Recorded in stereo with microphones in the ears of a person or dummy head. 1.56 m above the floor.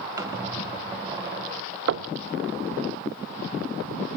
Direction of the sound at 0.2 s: 25° right (ahead or behind).